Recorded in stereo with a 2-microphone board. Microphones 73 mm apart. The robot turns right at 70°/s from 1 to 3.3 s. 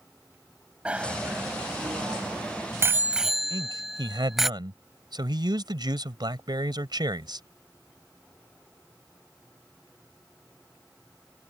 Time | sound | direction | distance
0.8 | a bicycle bell | 15° right (ahead or behind) | ?
3.5 | a man speaking | 75° right (ahead or behind) | ?